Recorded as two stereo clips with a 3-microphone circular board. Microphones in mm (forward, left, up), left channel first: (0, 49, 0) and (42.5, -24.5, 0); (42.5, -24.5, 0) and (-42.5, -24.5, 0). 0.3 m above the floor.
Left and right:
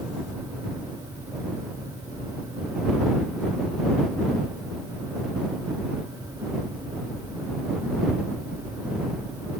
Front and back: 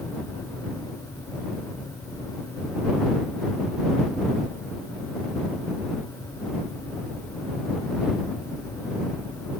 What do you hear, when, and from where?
Only background noise.